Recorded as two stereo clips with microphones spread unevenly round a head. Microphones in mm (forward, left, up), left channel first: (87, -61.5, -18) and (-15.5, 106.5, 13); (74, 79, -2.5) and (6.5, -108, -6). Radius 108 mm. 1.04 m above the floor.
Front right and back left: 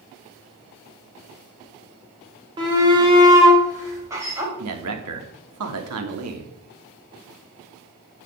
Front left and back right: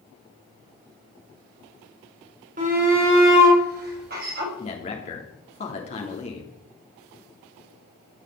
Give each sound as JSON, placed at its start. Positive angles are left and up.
{"t": 2.6, "sound": "a shout", "azimuth_deg": -170, "distance_m": 4.0}
{"t": 4.6, "sound": "a man speaking", "azimuth_deg": 130, "distance_m": 3.0}